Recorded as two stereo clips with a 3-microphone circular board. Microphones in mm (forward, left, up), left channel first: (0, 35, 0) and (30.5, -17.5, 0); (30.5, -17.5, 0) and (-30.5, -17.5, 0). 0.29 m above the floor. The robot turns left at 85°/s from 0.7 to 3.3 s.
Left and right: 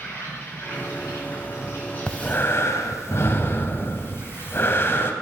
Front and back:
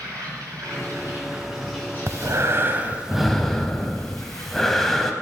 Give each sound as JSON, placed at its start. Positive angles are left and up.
{"t": 0.0, "sound": "an insect", "azimuth_deg": 165, "distance_m": 3.5}
{"t": 2.1, "sound": "breathing", "azimuth_deg": -170, "distance_m": 0.7}